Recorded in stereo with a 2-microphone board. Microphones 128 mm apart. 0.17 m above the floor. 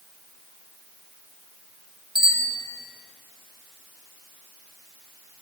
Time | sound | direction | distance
2.1 | a bicycle bell | 35° left (ahead or behind) | 2 m